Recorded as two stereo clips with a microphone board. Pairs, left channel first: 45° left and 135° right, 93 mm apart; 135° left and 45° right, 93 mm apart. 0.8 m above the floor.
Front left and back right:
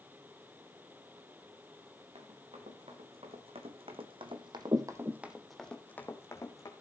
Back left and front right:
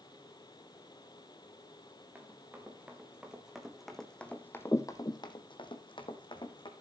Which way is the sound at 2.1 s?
120° right.